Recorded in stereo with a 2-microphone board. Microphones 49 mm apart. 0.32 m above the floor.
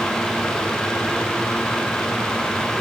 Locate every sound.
Only background noise.